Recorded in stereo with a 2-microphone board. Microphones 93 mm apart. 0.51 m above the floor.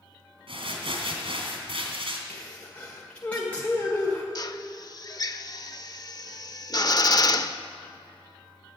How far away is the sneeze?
About 1.8 m.